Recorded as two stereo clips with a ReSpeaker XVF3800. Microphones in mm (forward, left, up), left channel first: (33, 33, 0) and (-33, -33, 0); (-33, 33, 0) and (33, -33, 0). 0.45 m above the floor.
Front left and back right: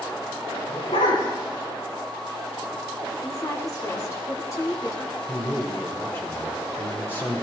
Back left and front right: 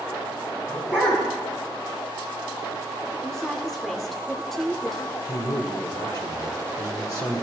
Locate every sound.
0.7 s a dog barking: 65° left, 6 m
3.2 s a woman speaking: 50° left, 1.2 m
5.3 s a man speaking: 100° left, 1.8 m